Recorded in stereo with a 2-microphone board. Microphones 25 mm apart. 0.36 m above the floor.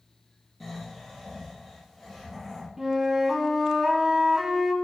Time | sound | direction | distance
0.6 | snoring | centre (ahead or behind) | 7 m
2.8 | a flute | 20° right (ahead or behind) | 1.6 m